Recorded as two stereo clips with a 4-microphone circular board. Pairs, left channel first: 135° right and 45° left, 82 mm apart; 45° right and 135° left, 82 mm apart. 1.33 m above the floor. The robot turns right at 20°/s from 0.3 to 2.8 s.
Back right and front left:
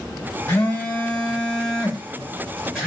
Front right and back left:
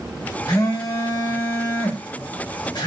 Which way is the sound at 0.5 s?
80° right.